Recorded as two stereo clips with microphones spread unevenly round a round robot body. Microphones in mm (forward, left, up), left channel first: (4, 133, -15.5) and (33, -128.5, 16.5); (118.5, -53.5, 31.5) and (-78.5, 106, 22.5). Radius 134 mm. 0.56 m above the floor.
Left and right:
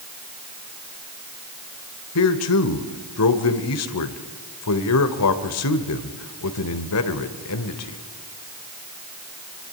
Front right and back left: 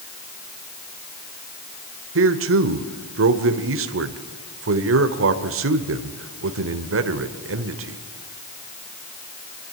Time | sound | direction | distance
2.1 | a man speaking | 115° left | 1.7 m